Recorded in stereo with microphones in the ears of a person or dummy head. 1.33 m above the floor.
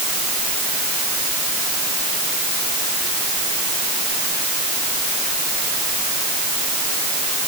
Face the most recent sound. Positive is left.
No sound to turn to.